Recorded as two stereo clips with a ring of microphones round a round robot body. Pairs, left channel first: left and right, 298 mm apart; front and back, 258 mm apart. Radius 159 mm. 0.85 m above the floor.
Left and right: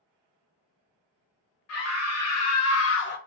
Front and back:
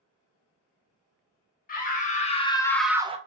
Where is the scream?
55° left, 1.2 m; by 3.2 s 130° left, 0.5 m.